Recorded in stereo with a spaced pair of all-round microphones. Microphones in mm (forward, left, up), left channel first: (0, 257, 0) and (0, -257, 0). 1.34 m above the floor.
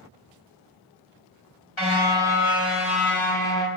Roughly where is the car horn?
Left.